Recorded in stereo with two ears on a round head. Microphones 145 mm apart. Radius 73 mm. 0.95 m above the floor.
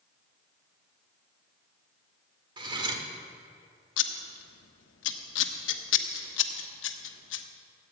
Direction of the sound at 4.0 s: 85° left.